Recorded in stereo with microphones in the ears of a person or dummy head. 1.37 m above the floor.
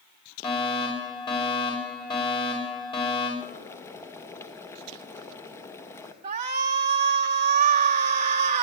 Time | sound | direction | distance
0.4 | a fire alarm | 25° left (ahead or behind) | 6 m
3.4 | boiling | 15° left (ahead or behind) | 1.4 m
6.2 | a shout | 40° right (ahead or behind) | 0.9 m